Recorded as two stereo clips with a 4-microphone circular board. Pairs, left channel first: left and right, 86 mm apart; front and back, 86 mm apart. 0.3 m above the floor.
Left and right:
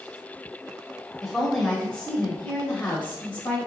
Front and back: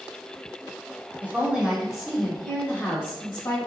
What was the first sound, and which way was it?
A woman speaking, 175° right.